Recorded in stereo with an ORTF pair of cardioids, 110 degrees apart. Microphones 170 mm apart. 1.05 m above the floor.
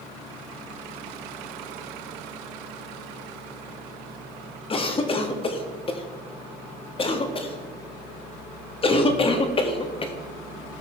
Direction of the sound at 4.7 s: 35° left.